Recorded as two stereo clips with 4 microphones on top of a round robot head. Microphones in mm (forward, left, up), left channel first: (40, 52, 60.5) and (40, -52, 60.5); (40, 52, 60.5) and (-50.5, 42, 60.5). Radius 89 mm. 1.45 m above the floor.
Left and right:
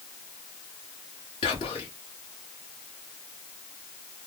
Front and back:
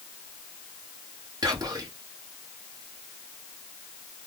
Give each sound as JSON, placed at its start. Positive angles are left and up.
{"t": 1.4, "sound": "whispering", "azimuth_deg": 140, "distance_m": 1.4}